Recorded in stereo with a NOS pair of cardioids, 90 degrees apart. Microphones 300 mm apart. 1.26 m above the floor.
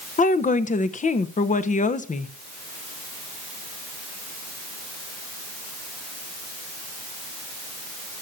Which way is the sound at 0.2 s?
25° left.